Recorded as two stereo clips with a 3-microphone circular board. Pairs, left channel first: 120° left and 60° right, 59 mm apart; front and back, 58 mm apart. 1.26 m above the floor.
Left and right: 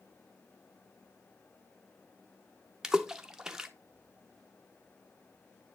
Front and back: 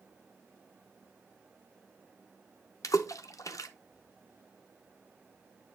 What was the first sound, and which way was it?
A splash, 20° left.